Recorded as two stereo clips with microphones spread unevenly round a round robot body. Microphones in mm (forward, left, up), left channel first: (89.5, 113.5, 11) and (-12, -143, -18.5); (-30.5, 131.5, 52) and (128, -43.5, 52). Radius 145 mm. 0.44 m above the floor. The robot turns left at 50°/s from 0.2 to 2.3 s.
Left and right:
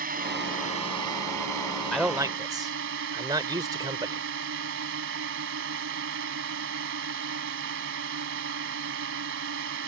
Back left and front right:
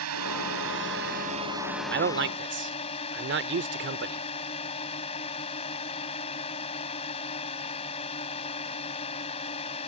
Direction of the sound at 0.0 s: 55° right.